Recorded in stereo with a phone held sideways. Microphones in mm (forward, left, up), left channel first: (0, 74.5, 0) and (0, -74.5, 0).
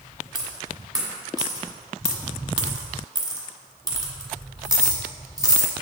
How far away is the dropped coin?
About 1.4 m.